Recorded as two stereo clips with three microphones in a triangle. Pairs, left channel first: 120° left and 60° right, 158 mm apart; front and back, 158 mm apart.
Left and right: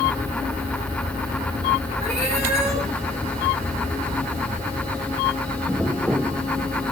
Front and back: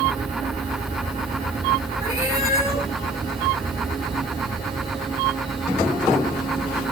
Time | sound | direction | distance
2.0 | a cat meowing | 110° right | 3.5 m